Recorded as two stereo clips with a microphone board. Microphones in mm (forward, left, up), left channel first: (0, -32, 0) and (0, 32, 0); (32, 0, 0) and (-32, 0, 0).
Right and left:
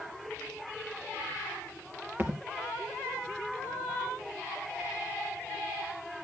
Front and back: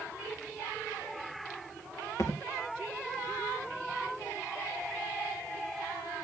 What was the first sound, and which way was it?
A thud, 35° left.